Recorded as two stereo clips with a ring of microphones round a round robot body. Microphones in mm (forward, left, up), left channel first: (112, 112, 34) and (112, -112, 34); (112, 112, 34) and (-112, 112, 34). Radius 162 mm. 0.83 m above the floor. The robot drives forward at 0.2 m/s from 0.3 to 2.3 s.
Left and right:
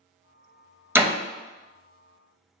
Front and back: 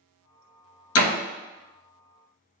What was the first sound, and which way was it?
A door slam, 10° right.